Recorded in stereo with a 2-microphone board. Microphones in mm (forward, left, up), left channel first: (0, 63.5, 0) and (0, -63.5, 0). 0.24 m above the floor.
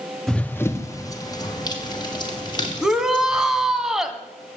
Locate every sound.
0.3 s running footsteps: 5° left (ahead or behind), 0.8 m; by 3.8 s 40° left (ahead or behind), 5 m
2.8 s a shout: 5° right (ahead or behind), 1.7 m